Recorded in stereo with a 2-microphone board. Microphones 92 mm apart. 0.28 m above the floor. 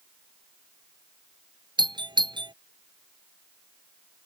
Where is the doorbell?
55° right (ahead or behind).